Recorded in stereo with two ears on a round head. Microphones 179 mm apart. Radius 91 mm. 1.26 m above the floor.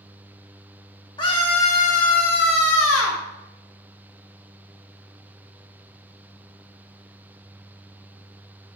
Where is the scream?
20° left (ahead or behind), 2.5 m; by 3.2 s 70° left (ahead or behind), 2 m.